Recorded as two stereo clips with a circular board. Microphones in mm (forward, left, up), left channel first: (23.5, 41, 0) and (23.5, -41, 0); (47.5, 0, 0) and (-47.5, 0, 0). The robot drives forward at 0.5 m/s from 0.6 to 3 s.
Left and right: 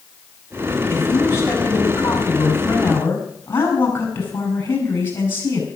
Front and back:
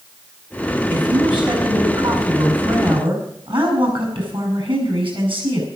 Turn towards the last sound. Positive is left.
turn(degrees=150)